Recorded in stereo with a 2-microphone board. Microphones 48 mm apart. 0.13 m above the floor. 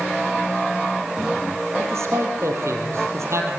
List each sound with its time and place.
1.8 s a man speaking: 70° right (ahead or behind), 4.5 m